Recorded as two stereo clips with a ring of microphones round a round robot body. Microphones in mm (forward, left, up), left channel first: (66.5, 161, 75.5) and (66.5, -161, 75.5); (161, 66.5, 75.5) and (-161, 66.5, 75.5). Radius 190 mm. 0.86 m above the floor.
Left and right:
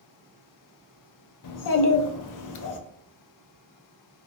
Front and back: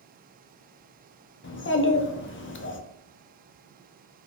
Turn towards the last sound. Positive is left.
turn(degrees=55)